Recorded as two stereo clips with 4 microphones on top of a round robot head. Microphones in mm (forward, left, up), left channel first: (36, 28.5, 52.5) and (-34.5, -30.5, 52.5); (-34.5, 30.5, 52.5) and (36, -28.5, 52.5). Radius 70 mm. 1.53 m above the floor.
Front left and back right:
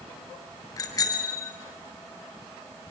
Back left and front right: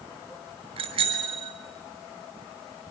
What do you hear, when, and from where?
0.8 s a bicycle bell: 15° right, 6 m